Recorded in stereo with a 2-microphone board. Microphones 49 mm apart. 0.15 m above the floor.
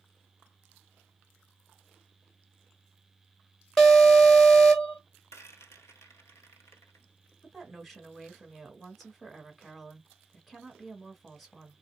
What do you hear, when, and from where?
3.8 s an alarm: 5° left (ahead or behind), 1.3 m
5.3 s a rattle: 65° left (ahead or behind), 1.1 m
7.4 s a woman speaking: centre (ahead or behind), 1.4 m